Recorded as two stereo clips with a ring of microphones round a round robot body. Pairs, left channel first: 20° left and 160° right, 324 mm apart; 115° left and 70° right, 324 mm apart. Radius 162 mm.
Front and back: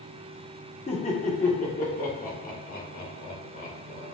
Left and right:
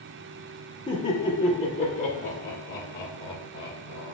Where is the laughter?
65° left, 1.3 m; by 4.1 s 85° left, 2.5 m.